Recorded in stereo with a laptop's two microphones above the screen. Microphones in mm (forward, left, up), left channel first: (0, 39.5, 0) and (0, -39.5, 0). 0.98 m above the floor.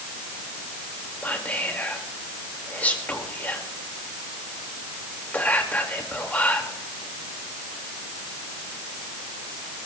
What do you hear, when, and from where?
1.2 s whispering: 20° left (ahead or behind), 2 m